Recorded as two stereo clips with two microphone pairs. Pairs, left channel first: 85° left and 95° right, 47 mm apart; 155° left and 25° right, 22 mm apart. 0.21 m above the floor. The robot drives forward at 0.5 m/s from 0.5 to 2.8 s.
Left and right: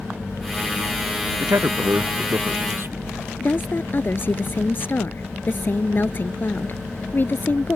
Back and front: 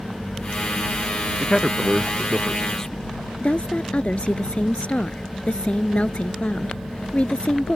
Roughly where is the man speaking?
Behind right.